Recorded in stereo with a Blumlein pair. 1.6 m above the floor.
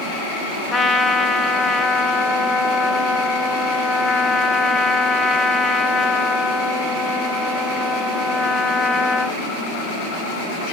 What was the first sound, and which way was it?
A trumpet, 15° left.